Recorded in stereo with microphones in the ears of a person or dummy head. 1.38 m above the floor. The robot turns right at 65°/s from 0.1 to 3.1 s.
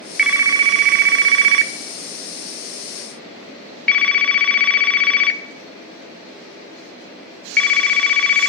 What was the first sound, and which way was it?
A phone ringing, centre (ahead or behind).